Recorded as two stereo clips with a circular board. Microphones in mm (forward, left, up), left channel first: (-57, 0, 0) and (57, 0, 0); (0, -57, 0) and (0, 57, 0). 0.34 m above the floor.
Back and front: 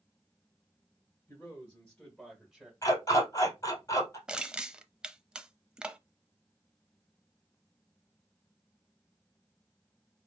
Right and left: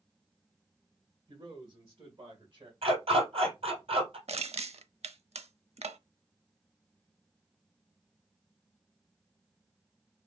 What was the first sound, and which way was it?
A man speaking, 130° left.